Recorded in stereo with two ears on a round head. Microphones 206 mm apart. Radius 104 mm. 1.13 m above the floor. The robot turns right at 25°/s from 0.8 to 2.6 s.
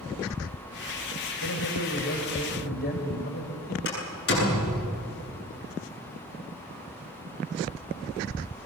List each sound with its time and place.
1.4 s a man speaking: 75° left (ahead or behind), 4.5 m; by 3.8 s 45° left (ahead or behind), 4.5 m
3.9 s a door slam: 50° left (ahead or behind), 9.5 m